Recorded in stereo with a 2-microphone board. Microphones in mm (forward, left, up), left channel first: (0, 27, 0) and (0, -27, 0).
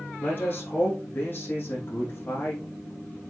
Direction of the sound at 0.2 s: 40° left (ahead or behind).